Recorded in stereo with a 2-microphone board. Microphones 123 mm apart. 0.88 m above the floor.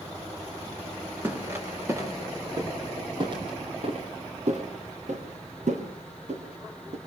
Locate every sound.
1.2 s footsteps: 15° right (ahead or behind), 6 m; by 7.0 s 60° right (ahead or behind), 5 m